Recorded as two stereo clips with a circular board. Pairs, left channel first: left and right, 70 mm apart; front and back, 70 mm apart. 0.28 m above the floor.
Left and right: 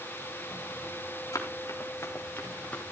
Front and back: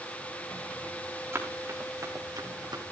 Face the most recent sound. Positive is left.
turn(degrees=160)